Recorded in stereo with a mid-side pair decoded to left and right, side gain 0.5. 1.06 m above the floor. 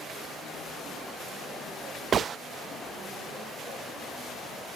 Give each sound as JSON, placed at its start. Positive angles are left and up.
{"t": 2.1, "sound": "a gunshot", "azimuth_deg": -45, "distance_m": 0.7}